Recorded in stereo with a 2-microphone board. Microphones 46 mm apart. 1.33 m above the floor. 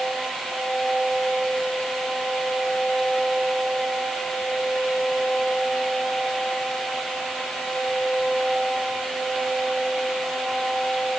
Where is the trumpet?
No trumpet in this recording.